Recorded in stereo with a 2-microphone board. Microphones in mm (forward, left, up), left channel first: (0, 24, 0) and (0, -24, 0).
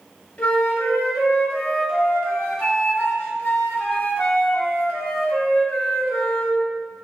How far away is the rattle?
No rattle in this recording.